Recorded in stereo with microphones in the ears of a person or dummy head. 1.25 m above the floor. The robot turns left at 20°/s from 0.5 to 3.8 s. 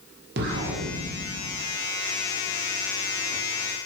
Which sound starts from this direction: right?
An explosion, at 0.4 s.